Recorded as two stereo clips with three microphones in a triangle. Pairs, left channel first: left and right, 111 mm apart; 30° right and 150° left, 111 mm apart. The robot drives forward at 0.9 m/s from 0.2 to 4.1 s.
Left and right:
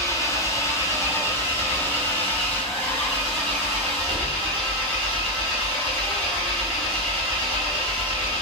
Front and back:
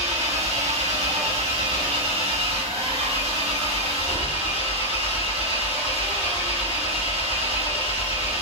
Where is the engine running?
150° left, 3 m; by 8.4 s 165° left, 6.5 m.